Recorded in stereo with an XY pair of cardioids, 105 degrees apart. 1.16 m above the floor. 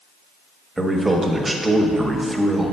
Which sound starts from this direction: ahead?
A man speaking, at 0.8 s.